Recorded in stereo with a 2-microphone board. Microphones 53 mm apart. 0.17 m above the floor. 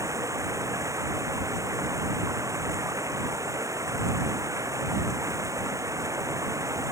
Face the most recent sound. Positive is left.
turn(degrees=-85)